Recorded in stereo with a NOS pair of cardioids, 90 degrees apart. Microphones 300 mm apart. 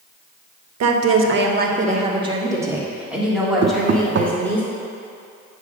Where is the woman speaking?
60° right, 1.2 m; by 4.6 s 5° left, 4 m.